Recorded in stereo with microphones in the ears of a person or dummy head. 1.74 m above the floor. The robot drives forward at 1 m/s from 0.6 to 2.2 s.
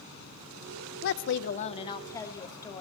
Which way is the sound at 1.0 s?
60° left (ahead or behind).